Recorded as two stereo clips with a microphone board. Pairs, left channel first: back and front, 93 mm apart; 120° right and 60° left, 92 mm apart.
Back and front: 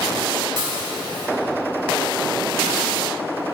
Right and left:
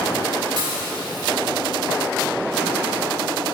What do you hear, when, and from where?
0.6 s dishes clattering: 25° left, 3.5 m